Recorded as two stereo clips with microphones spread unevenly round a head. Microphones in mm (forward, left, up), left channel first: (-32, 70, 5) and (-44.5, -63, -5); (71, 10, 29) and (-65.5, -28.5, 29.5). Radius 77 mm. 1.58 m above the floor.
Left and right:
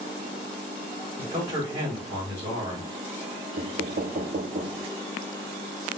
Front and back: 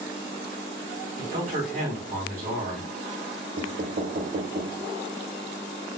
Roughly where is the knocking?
Behind right.